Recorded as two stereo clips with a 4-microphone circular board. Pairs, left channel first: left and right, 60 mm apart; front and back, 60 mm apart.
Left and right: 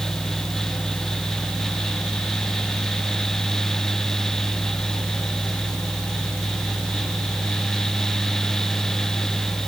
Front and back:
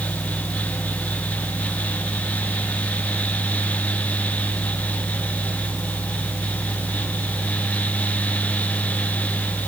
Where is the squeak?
I don't hear a squeak.